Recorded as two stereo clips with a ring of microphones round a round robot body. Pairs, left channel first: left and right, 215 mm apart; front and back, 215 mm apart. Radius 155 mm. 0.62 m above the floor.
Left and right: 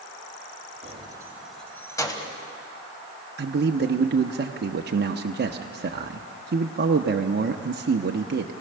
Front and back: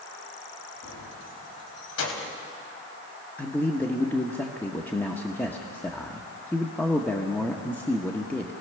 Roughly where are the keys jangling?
Ahead right.